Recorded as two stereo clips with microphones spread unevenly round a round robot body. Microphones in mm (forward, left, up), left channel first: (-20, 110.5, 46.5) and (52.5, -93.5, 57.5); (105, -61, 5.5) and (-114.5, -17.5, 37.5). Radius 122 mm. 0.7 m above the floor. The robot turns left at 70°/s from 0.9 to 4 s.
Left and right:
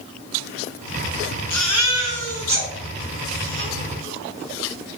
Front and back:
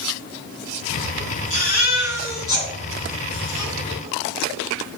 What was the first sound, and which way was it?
A baby crying, 30° left.